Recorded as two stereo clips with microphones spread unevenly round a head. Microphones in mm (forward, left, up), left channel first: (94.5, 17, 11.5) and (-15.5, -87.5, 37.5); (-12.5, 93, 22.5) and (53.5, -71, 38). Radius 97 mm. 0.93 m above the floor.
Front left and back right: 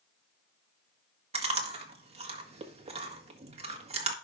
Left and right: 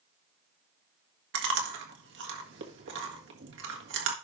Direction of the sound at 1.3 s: 85° right.